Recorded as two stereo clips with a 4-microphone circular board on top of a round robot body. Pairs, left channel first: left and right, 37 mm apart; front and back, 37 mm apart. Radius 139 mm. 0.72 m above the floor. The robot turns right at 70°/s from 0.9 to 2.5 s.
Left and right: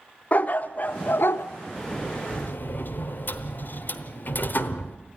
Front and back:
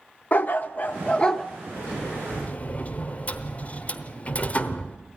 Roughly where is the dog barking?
Ahead left.